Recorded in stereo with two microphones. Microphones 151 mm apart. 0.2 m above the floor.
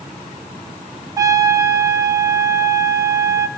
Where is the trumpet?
20° right (ahead or behind), 1.7 m.